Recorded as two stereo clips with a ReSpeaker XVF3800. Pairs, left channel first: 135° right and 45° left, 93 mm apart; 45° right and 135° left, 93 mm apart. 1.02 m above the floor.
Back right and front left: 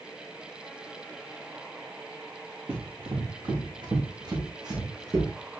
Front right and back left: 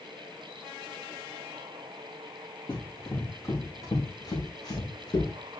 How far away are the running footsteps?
About 4 m.